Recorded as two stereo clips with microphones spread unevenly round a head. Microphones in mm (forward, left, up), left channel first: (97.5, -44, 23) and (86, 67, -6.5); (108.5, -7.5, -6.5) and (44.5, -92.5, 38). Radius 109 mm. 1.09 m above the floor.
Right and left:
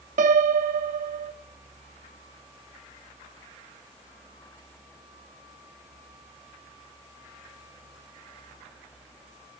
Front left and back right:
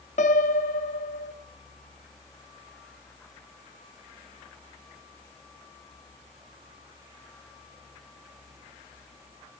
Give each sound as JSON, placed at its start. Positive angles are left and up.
{"t": 0.2, "sound": "a piano", "azimuth_deg": 110, "distance_m": 0.8}